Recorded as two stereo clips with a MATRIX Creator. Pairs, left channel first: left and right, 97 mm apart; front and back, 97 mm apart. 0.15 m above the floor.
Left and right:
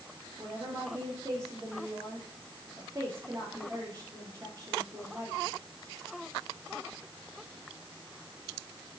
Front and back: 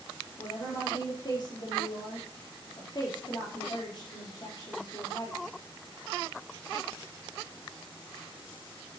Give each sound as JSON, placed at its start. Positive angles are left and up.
{"t": 0.4, "sound": "a woman speaking", "azimuth_deg": -40, "distance_m": 3.5}